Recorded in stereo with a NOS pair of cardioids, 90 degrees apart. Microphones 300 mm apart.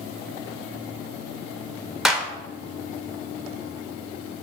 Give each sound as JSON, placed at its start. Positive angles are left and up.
{"t": 2.0, "sound": "a clap", "azimuth_deg": 0, "distance_m": 1.1}